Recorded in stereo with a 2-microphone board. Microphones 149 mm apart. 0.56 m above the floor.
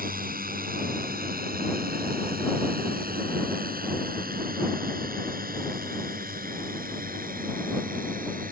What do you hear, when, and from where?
0.0 s a drone: 75° right (ahead or behind); by 8.5 s 70° right (ahead or behind)